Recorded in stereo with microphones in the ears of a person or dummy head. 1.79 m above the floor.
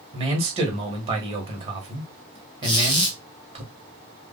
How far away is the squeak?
About 0.7 m.